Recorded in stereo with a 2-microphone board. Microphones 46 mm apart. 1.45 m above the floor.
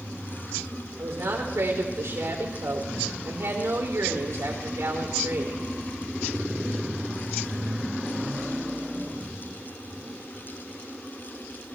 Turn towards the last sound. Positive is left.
turn(degrees=-75)  # may be behind; listen again after turning